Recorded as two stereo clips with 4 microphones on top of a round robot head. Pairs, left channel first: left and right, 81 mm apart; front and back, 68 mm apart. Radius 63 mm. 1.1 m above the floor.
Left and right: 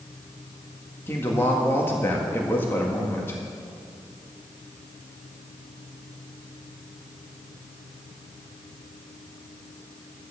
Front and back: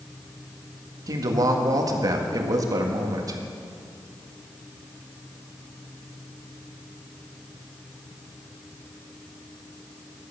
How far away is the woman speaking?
About 1.8 m.